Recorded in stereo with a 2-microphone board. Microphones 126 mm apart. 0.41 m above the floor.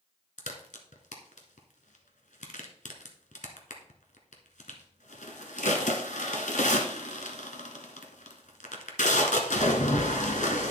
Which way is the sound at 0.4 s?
85° left.